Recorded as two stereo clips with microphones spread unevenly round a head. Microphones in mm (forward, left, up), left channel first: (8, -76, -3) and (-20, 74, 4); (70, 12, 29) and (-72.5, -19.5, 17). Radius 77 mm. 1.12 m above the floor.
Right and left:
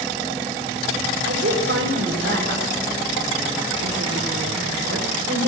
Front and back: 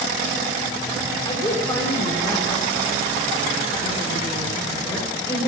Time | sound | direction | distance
1.2 | a woman speaking | 80° left | 4 m